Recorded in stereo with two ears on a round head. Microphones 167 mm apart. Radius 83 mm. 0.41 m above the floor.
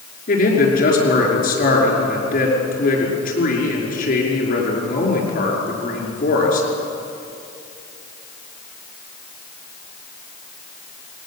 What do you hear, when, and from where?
0.3 s a man speaking: 50° left (ahead or behind), 6 m